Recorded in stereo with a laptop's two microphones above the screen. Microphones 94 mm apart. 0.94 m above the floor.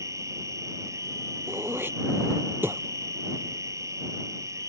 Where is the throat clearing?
25° right (ahead or behind).